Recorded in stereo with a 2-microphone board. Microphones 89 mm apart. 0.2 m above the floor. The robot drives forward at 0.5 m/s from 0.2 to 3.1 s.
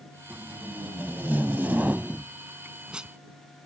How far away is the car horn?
No car horn in this recording.